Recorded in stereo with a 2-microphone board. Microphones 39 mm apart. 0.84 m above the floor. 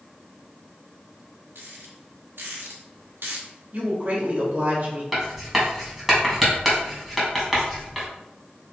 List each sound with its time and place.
1.6 s a rattle: 70° right (ahead or behind), 2 m
3.7 s a woman speaking: 45° right (ahead or behind), 3 m
5.1 s writing: 5° right (ahead or behind), 2.5 m